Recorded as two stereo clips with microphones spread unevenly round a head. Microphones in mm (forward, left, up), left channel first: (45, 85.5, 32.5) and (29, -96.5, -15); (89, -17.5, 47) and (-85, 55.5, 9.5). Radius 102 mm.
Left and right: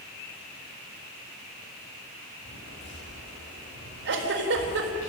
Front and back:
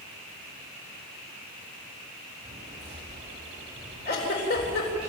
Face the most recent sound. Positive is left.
turn(degrees=-65)